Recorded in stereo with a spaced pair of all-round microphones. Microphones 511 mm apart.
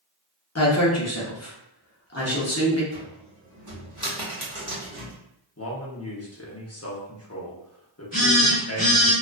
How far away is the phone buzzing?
About 1.2 m.